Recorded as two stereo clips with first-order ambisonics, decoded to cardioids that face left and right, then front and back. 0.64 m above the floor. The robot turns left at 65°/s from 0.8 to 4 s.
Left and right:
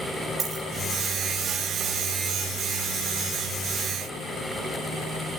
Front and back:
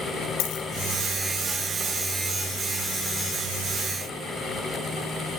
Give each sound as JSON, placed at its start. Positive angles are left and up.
{"t": 0.4, "sound": "a dropped coin", "azimuth_deg": -25, "distance_m": 5.0}